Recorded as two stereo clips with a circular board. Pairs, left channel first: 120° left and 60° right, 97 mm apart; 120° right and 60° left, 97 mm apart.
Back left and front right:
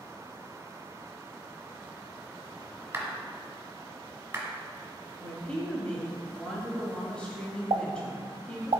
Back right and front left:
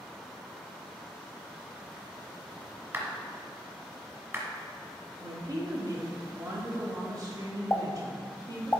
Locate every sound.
2.9 s a clap: straight ahead, 1.6 m
5.2 s a woman speaking: 45° left, 1.2 m
7.7 s a pop: 55° right, 0.6 m